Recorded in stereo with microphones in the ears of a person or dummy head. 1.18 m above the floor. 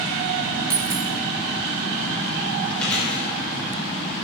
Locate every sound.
0.7 s a dropped coin: 20° right (ahead or behind), 1.2 m
2.8 s chewing: 5° left (ahead or behind), 5.5 m